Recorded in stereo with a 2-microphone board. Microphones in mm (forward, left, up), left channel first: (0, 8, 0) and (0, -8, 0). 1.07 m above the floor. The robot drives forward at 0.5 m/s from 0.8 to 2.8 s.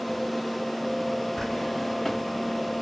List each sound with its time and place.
1.4 s a drawer: 20° left (ahead or behind), 1.0 m; by 2.8 s 40° left (ahead or behind), 0.6 m